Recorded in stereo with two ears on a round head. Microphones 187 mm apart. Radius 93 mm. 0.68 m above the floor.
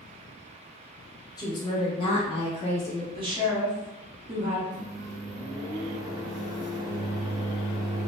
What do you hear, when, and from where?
1.4 s a woman speaking: 20° left (ahead or behind), 0.7 m; by 3.0 s 25° left (ahead or behind), 0.8 m
3.1 s a woman speaking: 25° right (ahead or behind), 1.2 m
4.7 s a microwave: 20° right (ahead or behind), 0.6 m